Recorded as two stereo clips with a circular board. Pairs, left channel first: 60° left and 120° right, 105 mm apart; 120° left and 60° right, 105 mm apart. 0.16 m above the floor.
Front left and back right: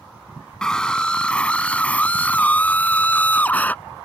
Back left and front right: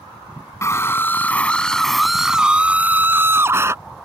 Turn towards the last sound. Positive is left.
turn(degrees=-10)